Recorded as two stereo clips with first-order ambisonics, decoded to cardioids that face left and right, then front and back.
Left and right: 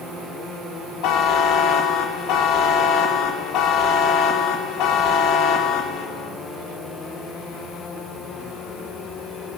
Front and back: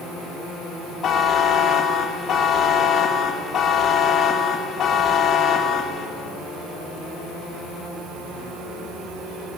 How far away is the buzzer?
About 2.0 m.